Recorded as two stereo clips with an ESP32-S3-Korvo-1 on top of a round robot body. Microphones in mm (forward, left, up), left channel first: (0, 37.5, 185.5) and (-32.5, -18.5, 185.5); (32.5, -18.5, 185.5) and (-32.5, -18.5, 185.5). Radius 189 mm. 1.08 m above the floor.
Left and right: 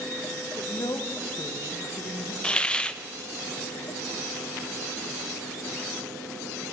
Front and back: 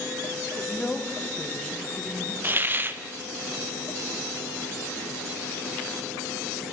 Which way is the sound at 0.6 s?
80° left.